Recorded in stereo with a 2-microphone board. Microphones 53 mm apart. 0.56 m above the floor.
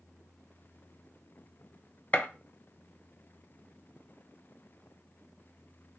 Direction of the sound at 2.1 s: 30° left (ahead or behind).